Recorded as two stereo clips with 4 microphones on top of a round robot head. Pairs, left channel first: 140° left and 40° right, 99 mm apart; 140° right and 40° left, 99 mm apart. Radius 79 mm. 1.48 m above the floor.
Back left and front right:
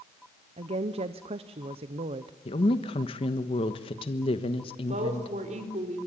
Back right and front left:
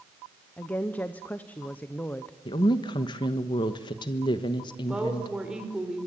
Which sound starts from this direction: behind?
A woman speaking, at 2.5 s.